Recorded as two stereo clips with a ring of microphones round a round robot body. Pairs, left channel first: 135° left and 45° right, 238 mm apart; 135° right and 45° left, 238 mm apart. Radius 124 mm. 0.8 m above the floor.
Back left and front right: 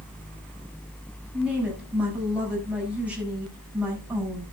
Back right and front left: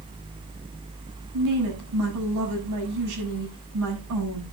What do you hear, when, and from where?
1.3 s a woman speaking: 40° left, 7 m